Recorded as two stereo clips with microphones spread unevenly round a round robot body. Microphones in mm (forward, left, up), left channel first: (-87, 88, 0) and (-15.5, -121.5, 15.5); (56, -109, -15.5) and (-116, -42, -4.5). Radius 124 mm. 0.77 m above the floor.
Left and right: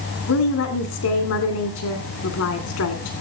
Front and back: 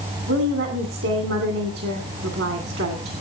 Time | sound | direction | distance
0.3 | a woman speaking | 120° left | 2.5 m